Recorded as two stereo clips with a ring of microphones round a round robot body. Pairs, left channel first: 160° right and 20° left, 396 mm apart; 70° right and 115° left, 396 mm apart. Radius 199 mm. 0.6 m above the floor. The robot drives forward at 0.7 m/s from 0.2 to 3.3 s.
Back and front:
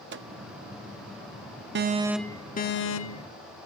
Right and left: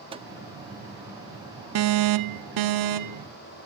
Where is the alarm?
75° left, 0.7 m; by 3.3 s 155° left, 1.2 m.